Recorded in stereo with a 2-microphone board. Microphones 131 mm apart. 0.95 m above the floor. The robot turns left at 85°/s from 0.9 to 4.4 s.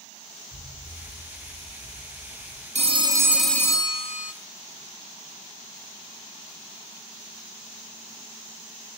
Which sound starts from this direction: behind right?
A phone ringing, at 2.8 s.